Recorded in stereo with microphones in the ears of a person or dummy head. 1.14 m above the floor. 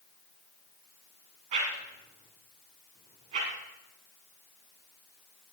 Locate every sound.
1.5 s a whoosh: 50° right (ahead or behind), 3.5 m